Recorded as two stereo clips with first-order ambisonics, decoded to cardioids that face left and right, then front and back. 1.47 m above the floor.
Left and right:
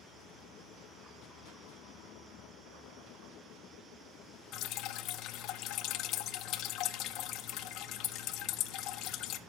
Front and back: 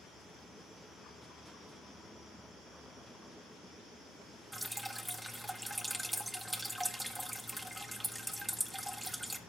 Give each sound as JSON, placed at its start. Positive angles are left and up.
{"t": 4.5, "sound": "dripping", "azimuth_deg": 90, "distance_m": 0.7}